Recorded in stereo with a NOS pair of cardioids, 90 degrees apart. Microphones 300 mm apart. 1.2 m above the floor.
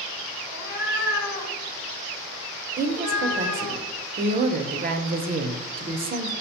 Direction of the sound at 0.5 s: 25° left.